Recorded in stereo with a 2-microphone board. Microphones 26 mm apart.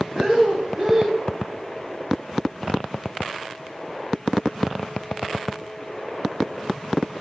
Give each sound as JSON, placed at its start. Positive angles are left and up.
{"t": 0.1, "sound": "breathing", "side_deg": -40, "distance_m": 1.0}